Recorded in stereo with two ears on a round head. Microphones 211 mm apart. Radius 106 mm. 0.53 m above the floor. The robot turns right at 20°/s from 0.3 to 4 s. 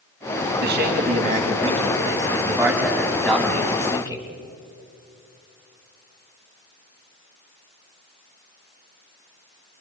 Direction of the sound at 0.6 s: 50° right.